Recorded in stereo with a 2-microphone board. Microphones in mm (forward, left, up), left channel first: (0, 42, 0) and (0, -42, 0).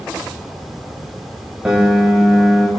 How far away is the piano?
About 5 m.